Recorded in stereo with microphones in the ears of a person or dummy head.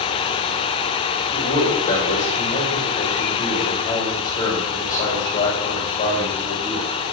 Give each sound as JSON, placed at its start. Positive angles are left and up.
{"t": 1.3, "sound": "a man speaking", "side_deg": 20, "distance_m": 5.5}